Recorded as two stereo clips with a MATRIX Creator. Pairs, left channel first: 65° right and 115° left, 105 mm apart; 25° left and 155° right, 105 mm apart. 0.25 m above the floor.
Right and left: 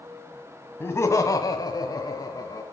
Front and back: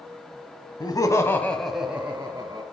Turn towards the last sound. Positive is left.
turn(degrees=-110)